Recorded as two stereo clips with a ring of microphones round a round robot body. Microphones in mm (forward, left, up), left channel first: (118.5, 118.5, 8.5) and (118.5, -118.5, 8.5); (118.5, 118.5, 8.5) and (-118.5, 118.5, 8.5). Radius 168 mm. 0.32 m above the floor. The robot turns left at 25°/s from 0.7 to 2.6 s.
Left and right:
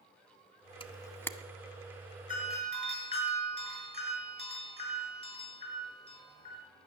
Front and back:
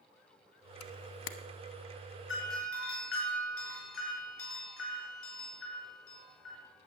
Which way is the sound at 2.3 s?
30° left.